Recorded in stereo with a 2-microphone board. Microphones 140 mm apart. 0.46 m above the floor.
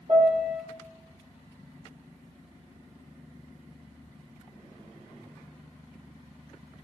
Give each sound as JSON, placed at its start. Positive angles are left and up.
{"t": 0.1, "sound": "a piano", "side_deg": -50, "distance_m": 1.9}